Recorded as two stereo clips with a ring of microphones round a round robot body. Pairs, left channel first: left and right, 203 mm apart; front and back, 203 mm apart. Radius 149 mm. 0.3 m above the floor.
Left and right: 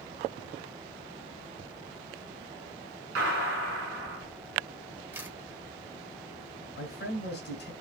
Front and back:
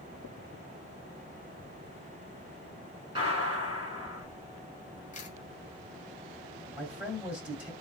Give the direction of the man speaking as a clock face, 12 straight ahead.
9 o'clock.